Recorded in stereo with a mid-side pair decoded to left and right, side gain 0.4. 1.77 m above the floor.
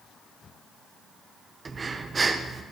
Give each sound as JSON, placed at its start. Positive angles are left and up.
{"t": 1.6, "sound": "breathing", "azimuth_deg": -35, "distance_m": 1.6}